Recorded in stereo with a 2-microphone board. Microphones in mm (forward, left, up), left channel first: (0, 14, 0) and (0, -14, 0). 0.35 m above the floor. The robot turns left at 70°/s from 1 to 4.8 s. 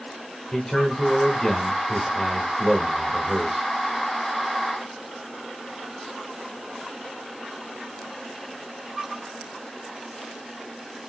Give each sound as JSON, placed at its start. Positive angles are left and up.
{"t": 0.5, "sound": "a man speaking", "side_deg": 20, "distance_m": 1.1}